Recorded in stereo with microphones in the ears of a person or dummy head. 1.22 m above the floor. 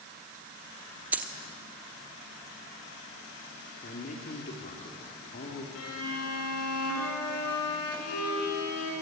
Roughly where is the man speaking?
Left.